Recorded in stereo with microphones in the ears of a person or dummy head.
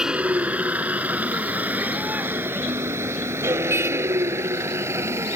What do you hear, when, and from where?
0.0 s a vehicle: 5° right (ahead or behind); by 5.4 s 15° right (ahead or behind)